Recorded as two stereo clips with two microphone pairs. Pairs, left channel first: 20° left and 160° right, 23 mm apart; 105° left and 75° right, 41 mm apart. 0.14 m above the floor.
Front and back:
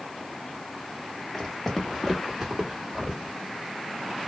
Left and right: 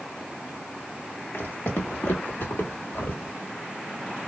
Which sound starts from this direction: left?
Footsteps, at 1.3 s.